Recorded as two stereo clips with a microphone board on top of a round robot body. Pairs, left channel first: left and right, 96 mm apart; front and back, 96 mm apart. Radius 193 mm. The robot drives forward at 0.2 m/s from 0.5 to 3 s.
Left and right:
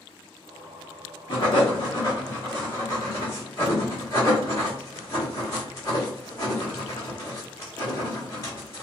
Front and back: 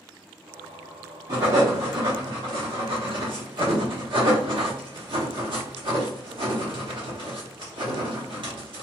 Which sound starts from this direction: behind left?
Writing, at 1.3 s.